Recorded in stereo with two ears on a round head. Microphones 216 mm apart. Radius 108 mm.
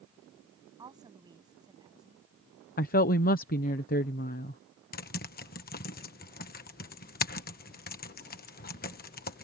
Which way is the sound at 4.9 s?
40° left (ahead or behind).